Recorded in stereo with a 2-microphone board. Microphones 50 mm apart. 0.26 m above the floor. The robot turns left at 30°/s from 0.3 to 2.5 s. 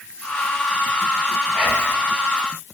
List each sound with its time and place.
1.5 s whispering: 5° right (ahead or behind), 1.2 m; by 2.0 s 15° right (ahead or behind), 1.2 m